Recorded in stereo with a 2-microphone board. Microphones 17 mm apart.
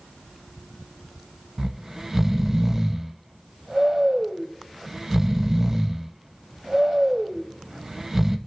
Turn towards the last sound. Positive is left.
turn(degrees=-20)  # may be behind; listen again after turning